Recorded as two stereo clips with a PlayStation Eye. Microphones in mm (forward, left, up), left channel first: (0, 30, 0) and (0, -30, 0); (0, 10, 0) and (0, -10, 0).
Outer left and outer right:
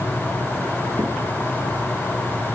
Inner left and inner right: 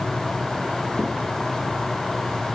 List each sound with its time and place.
1.0 s a crack: 85° right, 2.5 m